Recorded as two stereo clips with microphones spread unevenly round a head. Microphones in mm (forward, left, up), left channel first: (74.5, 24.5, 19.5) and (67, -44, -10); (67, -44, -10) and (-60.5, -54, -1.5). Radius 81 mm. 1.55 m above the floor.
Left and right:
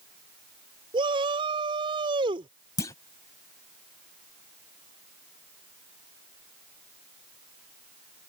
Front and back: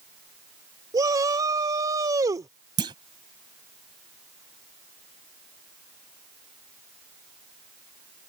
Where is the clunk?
125° left.